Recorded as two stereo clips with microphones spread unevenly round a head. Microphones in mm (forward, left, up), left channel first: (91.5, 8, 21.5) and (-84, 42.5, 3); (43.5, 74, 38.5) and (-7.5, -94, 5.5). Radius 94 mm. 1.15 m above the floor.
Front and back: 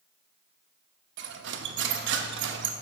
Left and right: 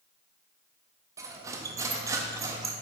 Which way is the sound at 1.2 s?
175° left.